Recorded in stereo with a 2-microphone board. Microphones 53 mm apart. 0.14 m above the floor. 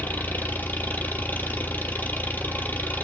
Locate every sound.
0.0 s an engine running: 35° left (ahead or behind), 1.3 m